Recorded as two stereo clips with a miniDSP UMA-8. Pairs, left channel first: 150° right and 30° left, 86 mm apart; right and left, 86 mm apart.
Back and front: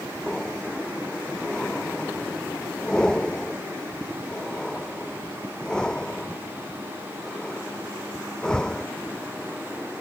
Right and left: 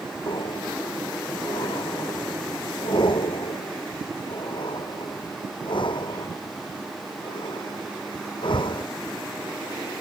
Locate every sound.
0.3 s breathing: 70° right